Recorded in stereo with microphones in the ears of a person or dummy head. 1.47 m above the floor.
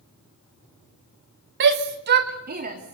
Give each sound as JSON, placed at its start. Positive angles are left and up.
{"t": 1.6, "sound": "a shout", "side_deg": -65, "distance_m": 1.6}